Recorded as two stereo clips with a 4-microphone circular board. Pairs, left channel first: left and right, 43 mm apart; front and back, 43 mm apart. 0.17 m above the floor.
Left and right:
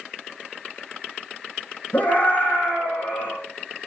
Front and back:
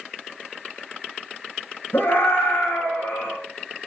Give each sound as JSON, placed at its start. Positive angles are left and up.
{"t": 1.9, "sound": "a scream", "azimuth_deg": 35, "distance_m": 9.5}